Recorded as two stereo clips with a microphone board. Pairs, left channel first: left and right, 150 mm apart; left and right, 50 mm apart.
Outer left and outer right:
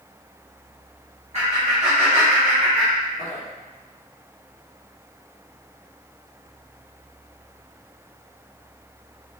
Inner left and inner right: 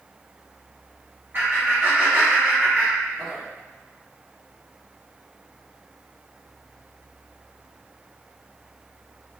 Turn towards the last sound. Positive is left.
turn(degrees=5)  # may be behind; listen again after turning